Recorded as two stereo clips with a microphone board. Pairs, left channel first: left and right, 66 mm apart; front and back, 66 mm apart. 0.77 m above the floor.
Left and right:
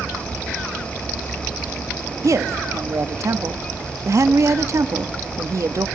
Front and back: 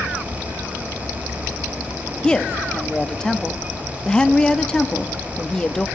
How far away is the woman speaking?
About 1.0 m.